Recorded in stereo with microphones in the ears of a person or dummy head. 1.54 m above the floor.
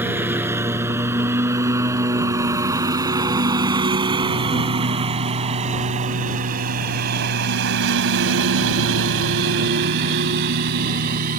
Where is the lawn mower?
15° right (ahead or behind); by 11.4 s 50° right (ahead or behind).